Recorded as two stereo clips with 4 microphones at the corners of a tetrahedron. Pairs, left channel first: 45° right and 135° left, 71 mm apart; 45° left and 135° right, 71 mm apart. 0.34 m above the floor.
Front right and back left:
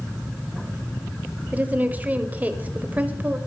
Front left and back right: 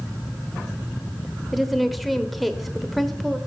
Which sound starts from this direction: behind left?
A woman speaking, at 1.5 s.